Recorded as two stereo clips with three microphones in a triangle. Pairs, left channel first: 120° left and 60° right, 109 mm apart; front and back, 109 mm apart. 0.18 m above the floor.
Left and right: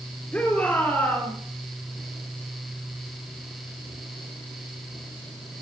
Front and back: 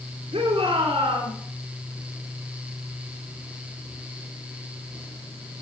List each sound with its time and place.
0.3 s a shout: 160° right, 4 m; by 1.3 s 165° right, 4.5 m